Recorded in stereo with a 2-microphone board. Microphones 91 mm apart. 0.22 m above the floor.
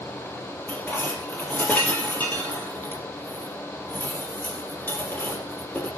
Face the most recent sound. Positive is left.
turn(degrees=20)  # may be behind; listen again after turning